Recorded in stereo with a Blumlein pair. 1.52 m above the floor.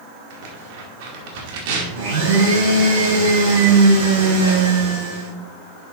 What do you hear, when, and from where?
0.3 s tearing paper: 50° right, 2 m
1.9 s a blender: 55° right, 4 m